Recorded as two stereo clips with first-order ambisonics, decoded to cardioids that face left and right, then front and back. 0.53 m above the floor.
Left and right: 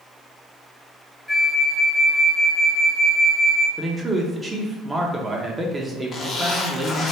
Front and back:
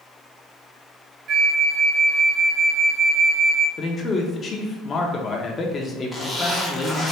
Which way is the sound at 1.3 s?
175° left.